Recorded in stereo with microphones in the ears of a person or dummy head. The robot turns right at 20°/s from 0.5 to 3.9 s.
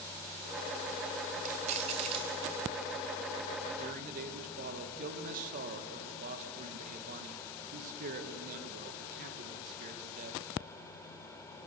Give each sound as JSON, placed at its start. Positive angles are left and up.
{"t": 1.4, "sound": "keys jangling", "side_deg": -45, "distance_m": 2.5}
{"t": 3.8, "sound": "a man speaking", "side_deg": -50, "distance_m": 2.0}